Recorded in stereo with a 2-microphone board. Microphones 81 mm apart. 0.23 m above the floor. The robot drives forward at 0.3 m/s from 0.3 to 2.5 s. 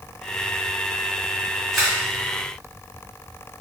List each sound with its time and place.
1.7 s a camera shutter: centre (ahead or behind), 1.2 m